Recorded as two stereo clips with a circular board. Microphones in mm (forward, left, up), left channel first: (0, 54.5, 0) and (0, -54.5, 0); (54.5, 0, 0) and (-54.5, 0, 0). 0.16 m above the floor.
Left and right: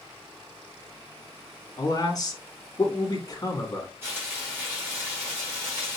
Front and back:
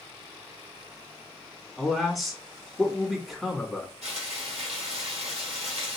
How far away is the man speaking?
About 1.4 m.